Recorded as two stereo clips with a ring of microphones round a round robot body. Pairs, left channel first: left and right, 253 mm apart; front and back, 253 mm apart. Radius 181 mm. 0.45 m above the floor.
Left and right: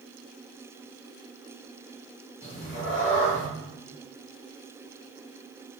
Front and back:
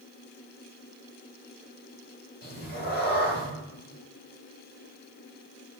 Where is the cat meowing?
50° left, 1.1 m.